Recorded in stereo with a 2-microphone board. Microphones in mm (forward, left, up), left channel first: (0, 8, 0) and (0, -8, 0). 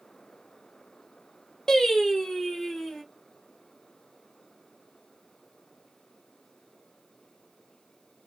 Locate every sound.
1.7 s singing: 40° left (ahead or behind), 0.9 m